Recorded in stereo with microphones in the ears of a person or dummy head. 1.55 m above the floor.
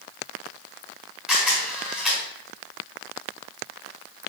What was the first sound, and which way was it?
A camera shutter, 5° right (ahead or behind).